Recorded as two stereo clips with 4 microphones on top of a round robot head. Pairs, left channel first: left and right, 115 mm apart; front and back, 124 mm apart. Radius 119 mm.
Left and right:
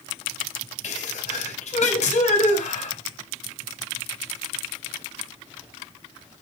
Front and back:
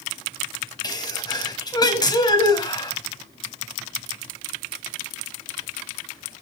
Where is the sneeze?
60° left, 5 m.